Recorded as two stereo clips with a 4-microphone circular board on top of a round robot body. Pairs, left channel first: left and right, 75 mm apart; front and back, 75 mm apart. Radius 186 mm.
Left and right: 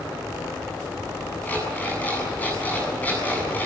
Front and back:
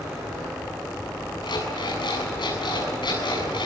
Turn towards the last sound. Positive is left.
turn(degrees=20)